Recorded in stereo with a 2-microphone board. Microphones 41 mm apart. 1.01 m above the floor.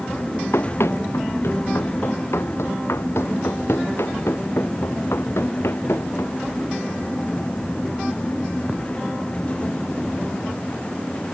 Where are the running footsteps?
80° left; by 6.4 s 85° left.